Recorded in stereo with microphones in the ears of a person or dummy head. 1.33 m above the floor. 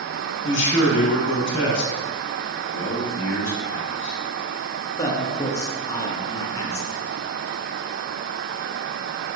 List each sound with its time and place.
0.4 s a man speaking: 60° left (ahead or behind), 1.1 m
2.7 s a man speaking: 65° left (ahead or behind), 0.8 m
5.0 s a man speaking: 20° left (ahead or behind), 0.8 m